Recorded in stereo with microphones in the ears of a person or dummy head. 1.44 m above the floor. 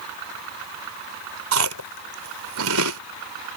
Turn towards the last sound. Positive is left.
turn(degrees=-75)  # may be behind; listen again after turning